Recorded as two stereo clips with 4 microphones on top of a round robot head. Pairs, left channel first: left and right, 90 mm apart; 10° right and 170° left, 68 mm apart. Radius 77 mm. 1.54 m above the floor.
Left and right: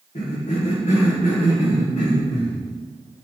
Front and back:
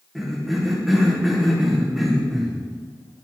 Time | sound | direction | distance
0.1 | a cough | 85° left | 1.4 m